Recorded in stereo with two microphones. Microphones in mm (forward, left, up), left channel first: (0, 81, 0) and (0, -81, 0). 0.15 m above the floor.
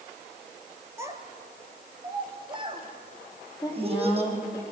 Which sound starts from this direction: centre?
A child speaking, at 1.0 s.